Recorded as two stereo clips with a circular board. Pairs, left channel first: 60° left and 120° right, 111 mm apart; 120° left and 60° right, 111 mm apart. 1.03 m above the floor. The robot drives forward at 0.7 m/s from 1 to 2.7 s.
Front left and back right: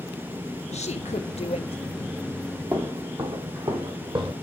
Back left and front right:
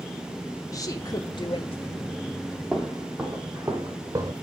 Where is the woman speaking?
65° left, 1.2 m; by 2.1 s 105° left, 1.1 m.